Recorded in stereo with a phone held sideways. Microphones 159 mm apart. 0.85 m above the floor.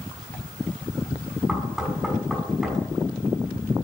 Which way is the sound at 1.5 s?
Centre (ahead or behind).